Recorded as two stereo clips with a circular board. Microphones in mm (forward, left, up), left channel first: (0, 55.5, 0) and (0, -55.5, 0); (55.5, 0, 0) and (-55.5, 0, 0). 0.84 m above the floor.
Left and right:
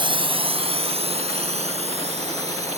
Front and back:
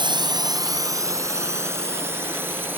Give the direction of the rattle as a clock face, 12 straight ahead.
No rattle in this recording.